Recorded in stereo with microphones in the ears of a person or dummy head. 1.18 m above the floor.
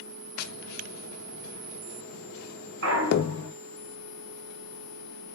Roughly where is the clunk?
Right.